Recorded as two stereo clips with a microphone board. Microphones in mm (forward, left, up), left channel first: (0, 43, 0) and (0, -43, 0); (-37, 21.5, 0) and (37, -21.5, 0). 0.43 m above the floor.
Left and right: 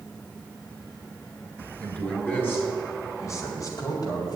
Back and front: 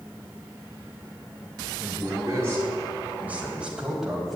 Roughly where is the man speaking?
Ahead.